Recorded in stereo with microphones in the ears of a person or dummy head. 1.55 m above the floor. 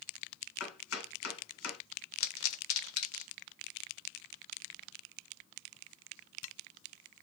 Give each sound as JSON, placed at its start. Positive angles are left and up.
{"t": 0.6, "sound": "chopping", "side_deg": 90, "distance_m": 1.5}
{"t": 2.2, "sound": "a pop", "side_deg": 80, "distance_m": 1.0}